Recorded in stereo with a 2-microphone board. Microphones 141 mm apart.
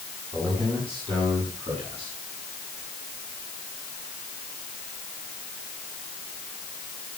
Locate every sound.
0.3 s a man speaking: 40° right (ahead or behind), 8.5 m; by 2.2 s 45° right (ahead or behind), 10.5 m